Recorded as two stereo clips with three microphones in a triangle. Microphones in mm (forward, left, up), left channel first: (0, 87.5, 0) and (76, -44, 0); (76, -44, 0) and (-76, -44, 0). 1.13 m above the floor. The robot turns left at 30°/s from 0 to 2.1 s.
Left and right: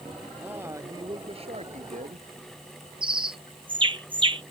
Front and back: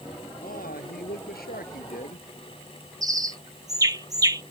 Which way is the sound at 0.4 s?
20° left.